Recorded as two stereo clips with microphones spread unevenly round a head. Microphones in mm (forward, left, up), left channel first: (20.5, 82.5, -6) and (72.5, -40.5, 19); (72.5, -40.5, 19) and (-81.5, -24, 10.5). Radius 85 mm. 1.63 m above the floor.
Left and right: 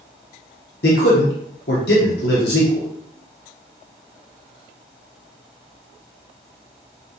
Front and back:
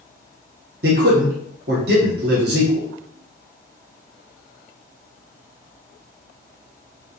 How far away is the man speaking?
About 1.1 m.